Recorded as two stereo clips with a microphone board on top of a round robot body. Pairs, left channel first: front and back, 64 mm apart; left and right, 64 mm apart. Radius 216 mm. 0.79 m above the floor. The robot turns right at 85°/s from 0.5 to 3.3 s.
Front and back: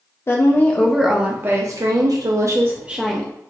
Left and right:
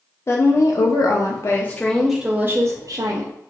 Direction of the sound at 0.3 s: 50° left.